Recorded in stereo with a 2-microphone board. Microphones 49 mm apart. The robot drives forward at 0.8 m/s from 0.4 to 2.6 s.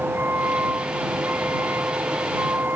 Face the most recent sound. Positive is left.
turn(degrees=-40)  # may be behind; listen again after turning